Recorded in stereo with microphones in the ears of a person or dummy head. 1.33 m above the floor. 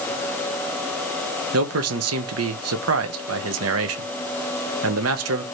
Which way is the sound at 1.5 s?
75° right (ahead or behind).